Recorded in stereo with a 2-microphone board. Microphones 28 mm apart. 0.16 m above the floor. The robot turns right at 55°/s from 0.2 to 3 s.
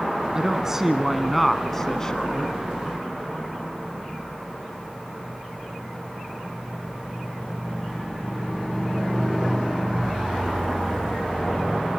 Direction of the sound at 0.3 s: 50° right.